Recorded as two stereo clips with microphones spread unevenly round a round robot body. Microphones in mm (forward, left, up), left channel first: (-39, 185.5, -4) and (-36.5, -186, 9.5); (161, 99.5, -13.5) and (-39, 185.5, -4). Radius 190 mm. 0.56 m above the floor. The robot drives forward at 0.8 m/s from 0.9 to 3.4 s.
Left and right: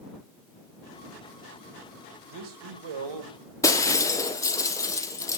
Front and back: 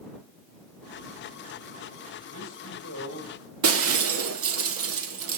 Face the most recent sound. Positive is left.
turn(degrees=170)